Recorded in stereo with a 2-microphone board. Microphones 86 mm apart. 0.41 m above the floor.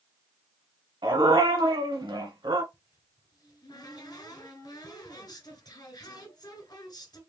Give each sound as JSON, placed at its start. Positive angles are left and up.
{"t": 1.0, "sound": "a dog barking", "side_deg": -75, "distance_m": 1.4}
{"t": 2.7, "sound": "a cupboard door", "side_deg": 50, "distance_m": 2.0}